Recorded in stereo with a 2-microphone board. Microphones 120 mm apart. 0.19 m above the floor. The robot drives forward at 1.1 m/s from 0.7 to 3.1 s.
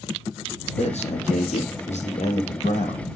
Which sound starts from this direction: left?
A man speaking, at 0.8 s.